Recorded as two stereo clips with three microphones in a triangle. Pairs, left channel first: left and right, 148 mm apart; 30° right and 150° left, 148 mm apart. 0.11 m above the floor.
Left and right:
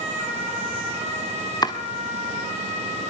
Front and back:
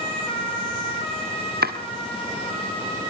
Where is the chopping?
155° left, 2 m.